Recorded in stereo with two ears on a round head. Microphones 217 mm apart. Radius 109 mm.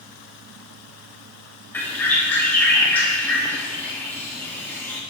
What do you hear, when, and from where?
1.7 s a bird: 10° left (ahead or behind), 1.1 m